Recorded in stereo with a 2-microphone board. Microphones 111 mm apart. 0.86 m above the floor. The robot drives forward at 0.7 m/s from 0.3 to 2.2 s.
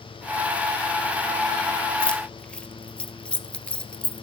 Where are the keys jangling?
10° left (ahead or behind), 1.2 m.